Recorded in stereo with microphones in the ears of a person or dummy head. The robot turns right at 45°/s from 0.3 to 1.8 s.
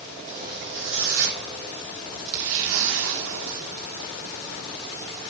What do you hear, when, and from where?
0.3 s a zipper: 140° right, 3.5 m; by 4.1 s 75° right, 3.5 m